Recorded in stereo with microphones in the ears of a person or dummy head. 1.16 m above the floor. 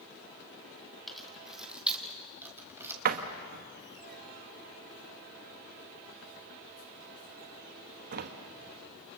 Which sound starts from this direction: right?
A door slam, at 3.0 s.